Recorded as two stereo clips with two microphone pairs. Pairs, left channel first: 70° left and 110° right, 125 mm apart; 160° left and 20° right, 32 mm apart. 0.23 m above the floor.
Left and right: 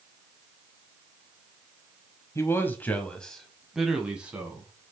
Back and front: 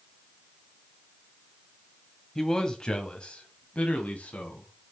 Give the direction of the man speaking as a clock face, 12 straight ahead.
9 o'clock.